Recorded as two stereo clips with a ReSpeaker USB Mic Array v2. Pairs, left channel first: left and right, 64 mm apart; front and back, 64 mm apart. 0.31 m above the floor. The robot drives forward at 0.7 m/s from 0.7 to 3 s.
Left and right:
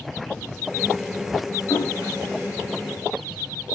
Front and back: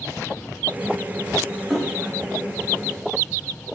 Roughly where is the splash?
Left.